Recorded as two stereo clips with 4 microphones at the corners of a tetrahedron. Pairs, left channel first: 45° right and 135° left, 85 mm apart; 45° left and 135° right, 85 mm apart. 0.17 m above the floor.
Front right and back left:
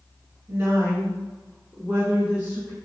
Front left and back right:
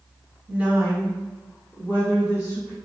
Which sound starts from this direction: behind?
A woman speaking, at 0.5 s.